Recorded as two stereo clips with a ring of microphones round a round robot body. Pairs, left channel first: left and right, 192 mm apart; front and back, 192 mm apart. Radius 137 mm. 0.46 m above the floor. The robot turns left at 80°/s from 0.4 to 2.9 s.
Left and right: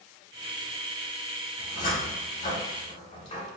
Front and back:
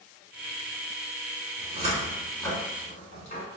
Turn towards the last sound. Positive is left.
turn(degrees=45)